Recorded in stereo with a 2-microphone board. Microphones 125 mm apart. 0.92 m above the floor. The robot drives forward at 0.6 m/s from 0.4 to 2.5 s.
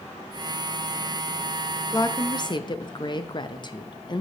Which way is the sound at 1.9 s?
25° left (ahead or behind).